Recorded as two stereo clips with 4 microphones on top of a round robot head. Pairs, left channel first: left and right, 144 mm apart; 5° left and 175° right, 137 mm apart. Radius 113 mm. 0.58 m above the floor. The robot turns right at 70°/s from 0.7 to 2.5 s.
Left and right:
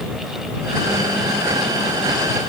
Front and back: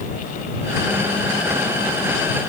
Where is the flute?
I don't hear a flute.